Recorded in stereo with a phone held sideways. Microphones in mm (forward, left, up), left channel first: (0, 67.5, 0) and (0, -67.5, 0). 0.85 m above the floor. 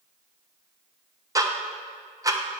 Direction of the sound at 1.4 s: 25° right (ahead or behind).